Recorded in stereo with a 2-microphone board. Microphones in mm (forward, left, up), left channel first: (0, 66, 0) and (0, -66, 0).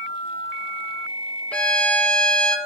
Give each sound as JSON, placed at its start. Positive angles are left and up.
{"t": 1.5, "sound": "a violin", "side_deg": 10, "distance_m": 0.5}